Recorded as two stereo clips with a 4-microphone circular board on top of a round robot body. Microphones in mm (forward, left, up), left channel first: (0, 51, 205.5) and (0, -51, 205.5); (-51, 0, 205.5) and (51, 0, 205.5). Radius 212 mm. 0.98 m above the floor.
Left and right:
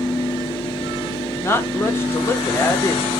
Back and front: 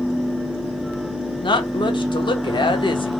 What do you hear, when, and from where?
1.4 s a woman speaking: 155° left, 1.0 m